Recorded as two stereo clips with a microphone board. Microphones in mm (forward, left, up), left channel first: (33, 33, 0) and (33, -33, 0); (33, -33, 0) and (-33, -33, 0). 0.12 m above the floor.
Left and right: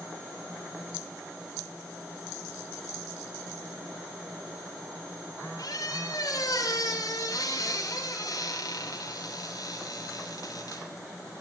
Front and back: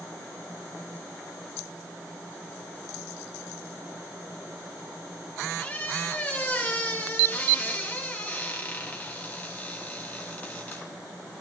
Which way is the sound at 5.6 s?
70° left.